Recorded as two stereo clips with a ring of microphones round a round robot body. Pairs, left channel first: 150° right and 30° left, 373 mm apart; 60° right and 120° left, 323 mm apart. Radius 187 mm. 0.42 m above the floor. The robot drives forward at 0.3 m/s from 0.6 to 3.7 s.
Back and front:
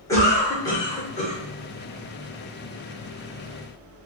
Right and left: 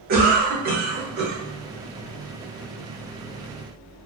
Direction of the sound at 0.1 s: 140° left.